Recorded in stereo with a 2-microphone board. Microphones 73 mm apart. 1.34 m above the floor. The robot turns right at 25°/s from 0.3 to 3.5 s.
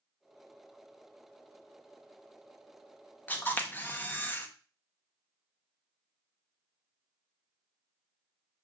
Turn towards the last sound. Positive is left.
turn(degrees=25)  # may be behind; listen again after turning